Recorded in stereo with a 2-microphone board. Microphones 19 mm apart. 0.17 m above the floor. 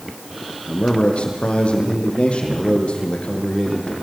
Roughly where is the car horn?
No car horn in this recording.